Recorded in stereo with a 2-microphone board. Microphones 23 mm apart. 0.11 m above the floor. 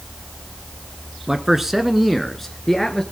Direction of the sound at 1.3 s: 20° right (ahead or behind).